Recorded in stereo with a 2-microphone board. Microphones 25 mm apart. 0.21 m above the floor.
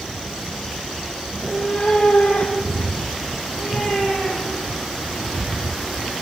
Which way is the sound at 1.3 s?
15° left (ahead or behind).